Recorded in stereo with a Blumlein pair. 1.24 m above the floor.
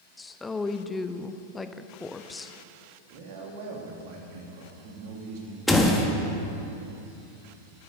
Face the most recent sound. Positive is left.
turn(degrees=5)